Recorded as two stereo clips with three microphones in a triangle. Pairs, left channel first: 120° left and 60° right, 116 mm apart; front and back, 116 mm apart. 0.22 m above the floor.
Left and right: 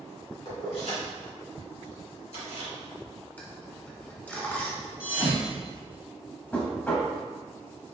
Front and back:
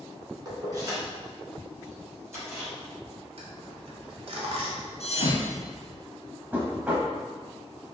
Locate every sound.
0.5 s keys jangling: 135° left, 1.4 m; by 2.7 s 115° left, 2.5 m
3.4 s a dropped coin: 170° right, 1.0 m
5.0 s a thud: 20° left, 0.9 m
6.5 s knocking: 150° left, 0.8 m